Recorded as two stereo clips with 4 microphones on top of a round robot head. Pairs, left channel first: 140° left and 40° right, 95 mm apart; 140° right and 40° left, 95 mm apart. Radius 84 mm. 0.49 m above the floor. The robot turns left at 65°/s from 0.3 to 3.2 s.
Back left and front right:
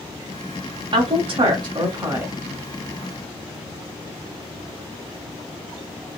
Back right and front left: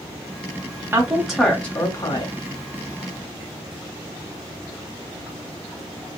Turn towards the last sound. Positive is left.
turn(degrees=-175)